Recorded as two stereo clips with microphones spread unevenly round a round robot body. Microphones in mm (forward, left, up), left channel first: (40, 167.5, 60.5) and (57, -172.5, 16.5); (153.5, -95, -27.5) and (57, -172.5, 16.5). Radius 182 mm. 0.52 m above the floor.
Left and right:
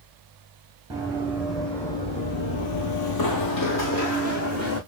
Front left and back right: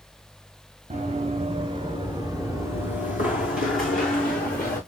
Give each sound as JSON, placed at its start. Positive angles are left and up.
{"t": 0.9, "sound": "running footsteps", "azimuth_deg": -170, "distance_m": 1.6}